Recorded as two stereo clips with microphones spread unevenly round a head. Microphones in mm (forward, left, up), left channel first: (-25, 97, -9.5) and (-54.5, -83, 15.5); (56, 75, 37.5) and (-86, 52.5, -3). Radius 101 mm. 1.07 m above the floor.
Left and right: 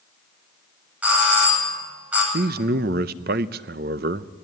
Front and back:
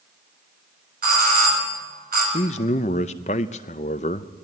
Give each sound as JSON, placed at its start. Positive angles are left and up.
{"t": 1.0, "sound": "a doorbell", "azimuth_deg": 180, "distance_m": 9.5}
{"t": 2.3, "sound": "a man speaking", "azimuth_deg": -50, "distance_m": 0.6}